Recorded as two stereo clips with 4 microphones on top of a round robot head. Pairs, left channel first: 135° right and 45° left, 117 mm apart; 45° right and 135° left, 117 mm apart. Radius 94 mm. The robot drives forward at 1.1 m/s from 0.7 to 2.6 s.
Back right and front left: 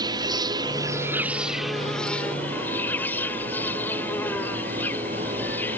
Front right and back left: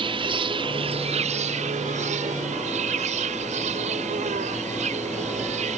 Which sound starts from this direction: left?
An insect, at 0.0 s.